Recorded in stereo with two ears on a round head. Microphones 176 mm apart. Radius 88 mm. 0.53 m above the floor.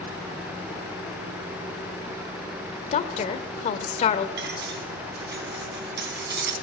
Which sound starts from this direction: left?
A woman speaking, at 2.9 s.